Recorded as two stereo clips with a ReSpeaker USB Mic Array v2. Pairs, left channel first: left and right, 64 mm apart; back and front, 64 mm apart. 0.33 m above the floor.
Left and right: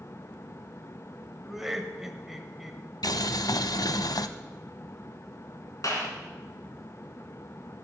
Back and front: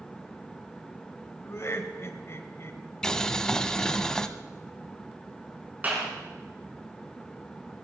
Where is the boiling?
100° left, 0.6 m.